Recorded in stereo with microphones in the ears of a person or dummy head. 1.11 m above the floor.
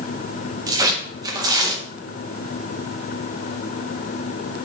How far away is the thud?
No thud in this recording.